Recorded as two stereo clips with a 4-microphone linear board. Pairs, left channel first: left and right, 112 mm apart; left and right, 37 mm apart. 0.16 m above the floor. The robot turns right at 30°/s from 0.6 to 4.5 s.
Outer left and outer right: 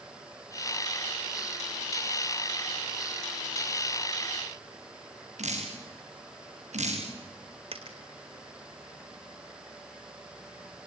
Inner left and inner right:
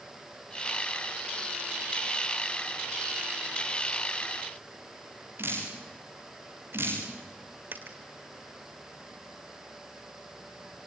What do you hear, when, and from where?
5.4 s dripping: 75° right (ahead or behind), 9 m
7.7 s a dropped coin: 60° right (ahead or behind), 1.8 m